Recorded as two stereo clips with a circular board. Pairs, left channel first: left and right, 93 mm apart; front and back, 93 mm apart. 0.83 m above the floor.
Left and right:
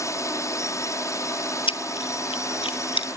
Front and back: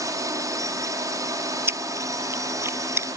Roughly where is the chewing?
Behind left.